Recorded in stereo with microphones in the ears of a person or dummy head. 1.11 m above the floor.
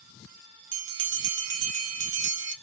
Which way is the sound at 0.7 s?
60° right (ahead or behind).